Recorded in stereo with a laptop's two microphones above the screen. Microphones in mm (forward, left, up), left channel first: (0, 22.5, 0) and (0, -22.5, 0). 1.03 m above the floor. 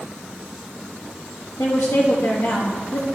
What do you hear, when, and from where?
1.6 s a woman speaking: 80° left, 1.2 m